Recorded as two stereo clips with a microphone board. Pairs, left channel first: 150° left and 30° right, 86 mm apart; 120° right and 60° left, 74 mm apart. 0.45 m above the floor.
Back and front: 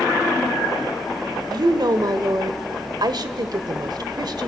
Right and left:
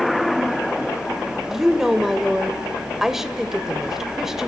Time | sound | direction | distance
1.5 | a woman speaking | 25° right | 1.4 m